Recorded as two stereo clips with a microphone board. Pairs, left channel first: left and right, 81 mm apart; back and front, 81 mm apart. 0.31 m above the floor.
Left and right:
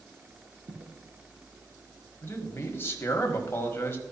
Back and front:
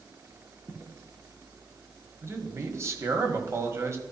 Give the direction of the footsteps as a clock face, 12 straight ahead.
3 o'clock.